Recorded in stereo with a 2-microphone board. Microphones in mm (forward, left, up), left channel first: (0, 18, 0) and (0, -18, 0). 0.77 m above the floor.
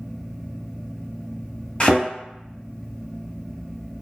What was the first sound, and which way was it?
A thud, 30° left (ahead or behind).